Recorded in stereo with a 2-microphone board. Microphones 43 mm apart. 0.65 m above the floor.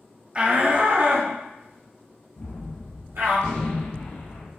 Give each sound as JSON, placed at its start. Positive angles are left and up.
{"t": 0.3, "sound": "a shout", "side_deg": -25, "distance_m": 0.7}
{"t": 2.4, "sound": "a gunshot", "side_deg": 75, "distance_m": 1.6}